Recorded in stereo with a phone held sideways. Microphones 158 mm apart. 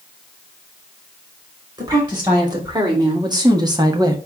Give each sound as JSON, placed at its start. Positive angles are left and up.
{"t": 1.8, "sound": "a woman speaking", "side_deg": -30, "distance_m": 2.5}